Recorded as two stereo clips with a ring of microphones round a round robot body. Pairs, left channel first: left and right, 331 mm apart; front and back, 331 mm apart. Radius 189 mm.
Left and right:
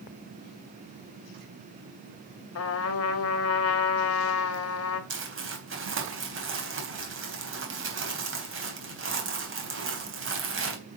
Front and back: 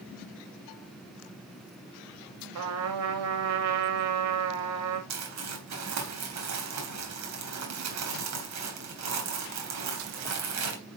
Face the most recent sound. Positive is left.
turn(degrees=-140)